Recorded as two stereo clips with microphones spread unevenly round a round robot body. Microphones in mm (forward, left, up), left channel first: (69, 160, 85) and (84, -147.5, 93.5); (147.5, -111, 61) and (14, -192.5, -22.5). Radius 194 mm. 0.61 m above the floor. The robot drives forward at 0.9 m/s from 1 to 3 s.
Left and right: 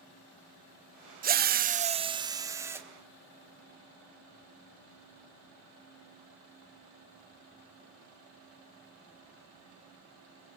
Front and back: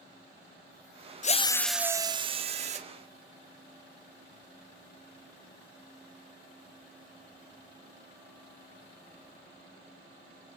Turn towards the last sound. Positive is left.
turn(degrees=-170)